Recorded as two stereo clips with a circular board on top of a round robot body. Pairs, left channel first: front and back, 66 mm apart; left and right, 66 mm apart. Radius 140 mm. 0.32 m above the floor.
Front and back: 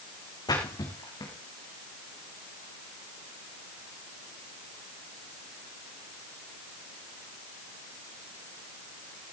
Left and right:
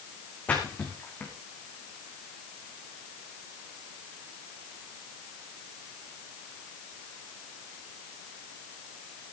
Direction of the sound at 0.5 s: 20° left.